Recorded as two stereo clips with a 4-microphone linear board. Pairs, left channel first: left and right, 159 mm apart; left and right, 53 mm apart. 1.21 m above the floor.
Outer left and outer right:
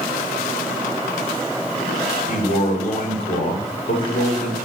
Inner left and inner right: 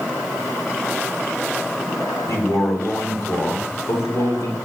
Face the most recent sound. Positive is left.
turn(degrees=60)  # may be behind; listen again after turning